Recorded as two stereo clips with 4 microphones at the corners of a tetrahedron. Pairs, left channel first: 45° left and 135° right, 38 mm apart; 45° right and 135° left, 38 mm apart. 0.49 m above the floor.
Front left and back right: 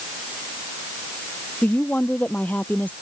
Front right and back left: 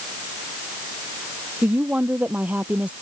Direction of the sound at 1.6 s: 85° left.